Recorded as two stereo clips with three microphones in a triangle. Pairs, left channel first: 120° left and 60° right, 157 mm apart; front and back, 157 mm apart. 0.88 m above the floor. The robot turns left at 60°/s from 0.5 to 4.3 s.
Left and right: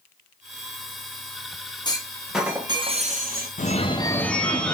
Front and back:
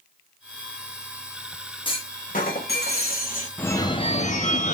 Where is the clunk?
55° left, 0.9 m; by 3.5 s 40° right, 0.9 m.